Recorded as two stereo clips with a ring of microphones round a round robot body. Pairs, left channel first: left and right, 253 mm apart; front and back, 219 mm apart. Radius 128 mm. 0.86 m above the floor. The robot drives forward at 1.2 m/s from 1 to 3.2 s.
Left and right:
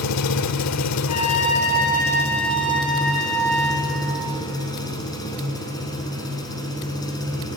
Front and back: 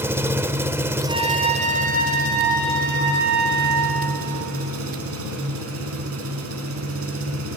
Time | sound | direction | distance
0.0 | an engine running | 100° left | 0.8 m
1.1 | a trumpet | 115° left | 3.5 m